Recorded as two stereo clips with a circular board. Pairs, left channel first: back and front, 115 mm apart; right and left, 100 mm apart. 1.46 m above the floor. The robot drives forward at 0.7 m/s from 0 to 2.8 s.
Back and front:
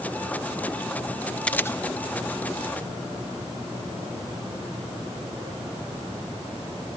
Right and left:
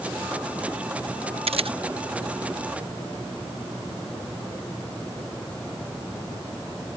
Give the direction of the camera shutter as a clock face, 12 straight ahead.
9 o'clock.